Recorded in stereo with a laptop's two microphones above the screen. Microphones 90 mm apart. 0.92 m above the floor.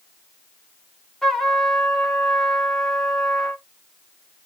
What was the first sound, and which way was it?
A trumpet, 5° left (ahead or behind).